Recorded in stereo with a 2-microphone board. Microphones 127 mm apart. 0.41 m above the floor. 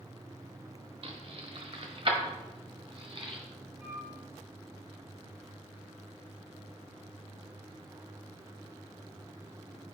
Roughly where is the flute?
Centre.